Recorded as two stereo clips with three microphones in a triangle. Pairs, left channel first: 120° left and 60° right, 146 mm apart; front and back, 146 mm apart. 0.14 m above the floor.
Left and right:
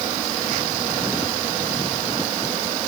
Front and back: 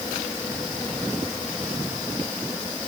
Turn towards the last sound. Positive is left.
No sound to turn to.